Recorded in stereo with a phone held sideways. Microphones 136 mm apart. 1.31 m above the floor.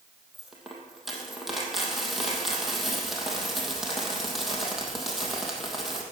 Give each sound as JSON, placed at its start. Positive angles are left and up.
{"t": 0.3, "sound": "a dropped coin", "side_deg": 0, "distance_m": 2.5}